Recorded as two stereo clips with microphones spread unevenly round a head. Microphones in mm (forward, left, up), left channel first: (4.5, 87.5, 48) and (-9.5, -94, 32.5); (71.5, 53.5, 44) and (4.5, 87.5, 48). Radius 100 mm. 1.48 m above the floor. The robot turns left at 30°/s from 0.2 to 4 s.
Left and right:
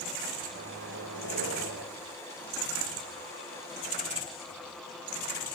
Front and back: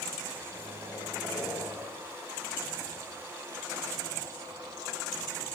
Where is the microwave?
75° right, 5.5 m; by 1.9 s 120° right, 5.5 m.